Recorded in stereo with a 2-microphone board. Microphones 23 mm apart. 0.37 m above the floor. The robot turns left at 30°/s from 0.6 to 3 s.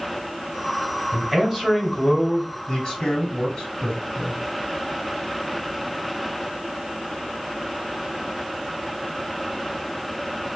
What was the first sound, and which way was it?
A man speaking, 170° right.